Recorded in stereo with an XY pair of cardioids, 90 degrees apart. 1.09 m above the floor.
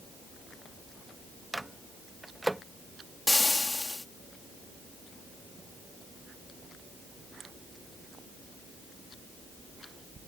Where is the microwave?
10° right.